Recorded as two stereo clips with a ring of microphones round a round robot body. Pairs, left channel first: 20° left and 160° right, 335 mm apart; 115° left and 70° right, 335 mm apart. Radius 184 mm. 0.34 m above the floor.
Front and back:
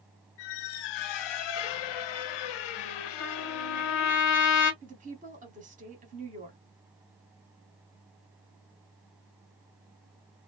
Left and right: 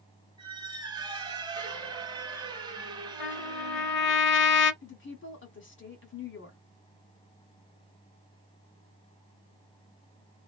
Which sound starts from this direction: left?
A trumpet, at 3.2 s.